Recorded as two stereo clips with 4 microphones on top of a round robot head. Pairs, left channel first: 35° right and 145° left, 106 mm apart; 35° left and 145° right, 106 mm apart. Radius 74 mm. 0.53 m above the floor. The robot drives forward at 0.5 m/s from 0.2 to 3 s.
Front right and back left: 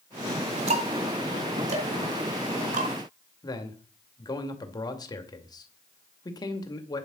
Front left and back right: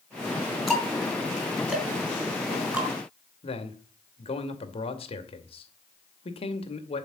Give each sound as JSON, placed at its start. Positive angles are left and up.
{"t": 0.7, "sound": "ticking", "azimuth_deg": 125, "distance_m": 4.0}
{"t": 3.4, "sound": "a man speaking", "azimuth_deg": 15, "distance_m": 2.5}